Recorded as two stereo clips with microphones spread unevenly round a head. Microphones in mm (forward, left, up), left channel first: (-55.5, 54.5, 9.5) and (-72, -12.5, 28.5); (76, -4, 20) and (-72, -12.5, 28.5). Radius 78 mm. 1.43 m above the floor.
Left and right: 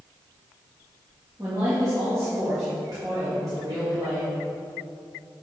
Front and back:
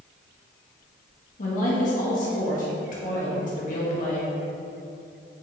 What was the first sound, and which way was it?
A woman speaking, 35° right.